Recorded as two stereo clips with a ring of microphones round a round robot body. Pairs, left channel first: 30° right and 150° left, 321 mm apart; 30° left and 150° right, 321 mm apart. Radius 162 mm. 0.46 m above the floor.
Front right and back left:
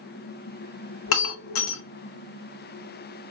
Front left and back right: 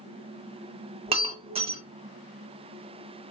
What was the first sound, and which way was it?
Breaking glass, 80° right.